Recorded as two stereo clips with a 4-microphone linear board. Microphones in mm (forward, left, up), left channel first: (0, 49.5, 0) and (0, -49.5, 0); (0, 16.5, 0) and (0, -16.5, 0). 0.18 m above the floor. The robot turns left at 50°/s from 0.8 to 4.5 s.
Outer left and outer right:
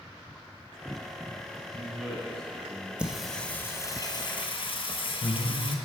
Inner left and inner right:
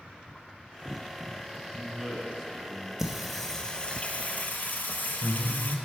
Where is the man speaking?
10° right (ahead or behind), 1.1 m; by 2.9 s 15° left (ahead or behind), 1.1 m.